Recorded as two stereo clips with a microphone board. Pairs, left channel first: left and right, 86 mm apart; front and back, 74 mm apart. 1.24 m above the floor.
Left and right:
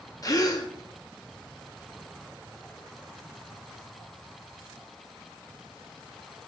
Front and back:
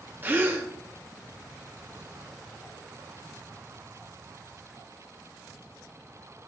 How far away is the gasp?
About 0.7 m.